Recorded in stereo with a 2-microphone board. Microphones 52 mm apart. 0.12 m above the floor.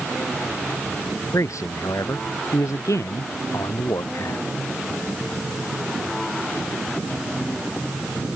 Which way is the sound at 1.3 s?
85° left.